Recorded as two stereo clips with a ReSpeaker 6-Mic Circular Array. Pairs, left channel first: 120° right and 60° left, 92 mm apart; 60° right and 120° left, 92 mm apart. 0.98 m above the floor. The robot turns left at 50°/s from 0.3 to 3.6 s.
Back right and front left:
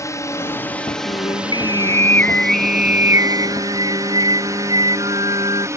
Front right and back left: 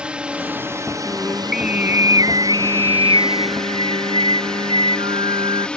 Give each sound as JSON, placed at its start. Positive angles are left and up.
{"t": 0.0, "sound": "a drone", "azimuth_deg": -165}
{"t": 1.1, "sound": "singing", "azimuth_deg": -130}